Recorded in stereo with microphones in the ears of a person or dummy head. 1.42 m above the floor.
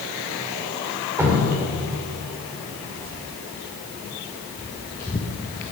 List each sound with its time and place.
1.2 s dripping: 10° right (ahead or behind), 3 m
2.7 s footsteps: 50° right (ahead or behind), 2 m; by 5.6 s 30° left (ahead or behind), 1.6 m